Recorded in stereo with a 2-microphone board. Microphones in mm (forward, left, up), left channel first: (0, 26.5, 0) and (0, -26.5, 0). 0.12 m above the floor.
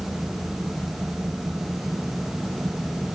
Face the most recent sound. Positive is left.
No sound to turn to.